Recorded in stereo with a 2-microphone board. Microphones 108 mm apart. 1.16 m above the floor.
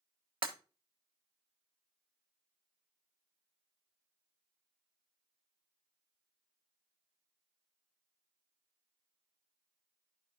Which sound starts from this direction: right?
Breaking glass, at 0.4 s.